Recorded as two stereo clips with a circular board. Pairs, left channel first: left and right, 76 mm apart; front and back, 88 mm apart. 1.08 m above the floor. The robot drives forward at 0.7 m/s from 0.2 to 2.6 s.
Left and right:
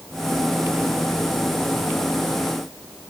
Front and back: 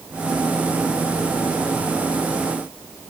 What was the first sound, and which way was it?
Only background noise.